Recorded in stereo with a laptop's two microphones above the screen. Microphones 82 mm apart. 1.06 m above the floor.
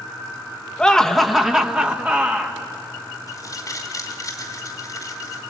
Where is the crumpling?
45° left (ahead or behind), 2.5 m.